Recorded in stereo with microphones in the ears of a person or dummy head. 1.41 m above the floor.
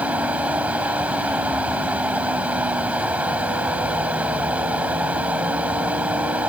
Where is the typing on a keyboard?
I don't hear typing on a keyboard.